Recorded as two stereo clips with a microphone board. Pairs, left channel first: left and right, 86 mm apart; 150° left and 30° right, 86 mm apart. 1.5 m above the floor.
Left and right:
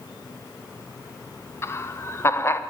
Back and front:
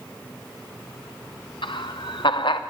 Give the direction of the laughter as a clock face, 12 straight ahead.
7 o'clock.